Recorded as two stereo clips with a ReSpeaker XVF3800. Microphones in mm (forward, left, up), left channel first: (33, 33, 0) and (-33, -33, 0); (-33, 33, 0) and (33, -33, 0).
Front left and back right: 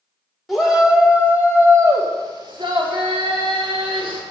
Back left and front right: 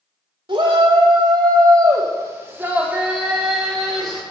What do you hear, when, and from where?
0.5 s a shout: 45° right, 2.0 m; by 4.2 s 140° right, 2.5 m